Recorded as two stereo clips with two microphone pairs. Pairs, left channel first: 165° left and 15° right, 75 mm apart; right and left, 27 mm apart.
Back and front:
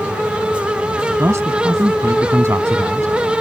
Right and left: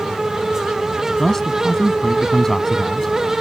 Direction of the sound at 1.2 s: 25° right.